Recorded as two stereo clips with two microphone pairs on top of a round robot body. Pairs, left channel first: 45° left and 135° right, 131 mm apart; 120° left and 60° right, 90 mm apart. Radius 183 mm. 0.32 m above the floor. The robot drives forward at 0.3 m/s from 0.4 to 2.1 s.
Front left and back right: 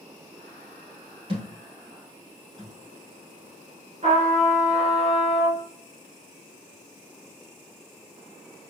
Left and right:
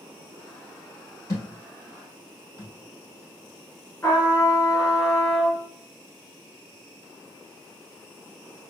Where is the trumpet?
175° right, 1.8 m.